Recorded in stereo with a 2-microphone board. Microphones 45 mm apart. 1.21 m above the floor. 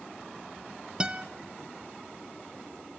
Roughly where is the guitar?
Right.